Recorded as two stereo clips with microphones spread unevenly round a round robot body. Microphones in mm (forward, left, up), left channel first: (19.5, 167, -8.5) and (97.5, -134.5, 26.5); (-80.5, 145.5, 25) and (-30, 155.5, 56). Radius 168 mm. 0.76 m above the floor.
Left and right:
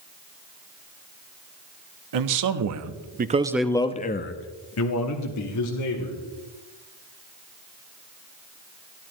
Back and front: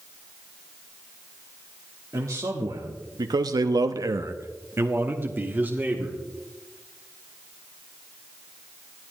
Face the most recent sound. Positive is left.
turn(degrees=80)